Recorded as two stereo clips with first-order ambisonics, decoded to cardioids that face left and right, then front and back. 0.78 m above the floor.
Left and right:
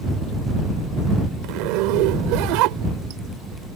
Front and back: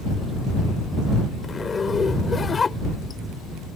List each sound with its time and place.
1.4 s a zipper: 75° right